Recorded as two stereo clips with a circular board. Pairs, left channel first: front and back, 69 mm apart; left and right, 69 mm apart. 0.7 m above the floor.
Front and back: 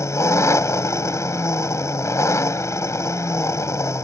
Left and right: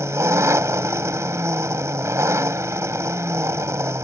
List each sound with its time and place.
0.0 s an engine running: 45° right